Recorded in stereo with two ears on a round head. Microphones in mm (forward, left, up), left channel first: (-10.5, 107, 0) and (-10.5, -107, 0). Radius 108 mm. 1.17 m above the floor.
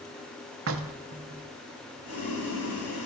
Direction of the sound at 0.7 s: 55° right (ahead or behind).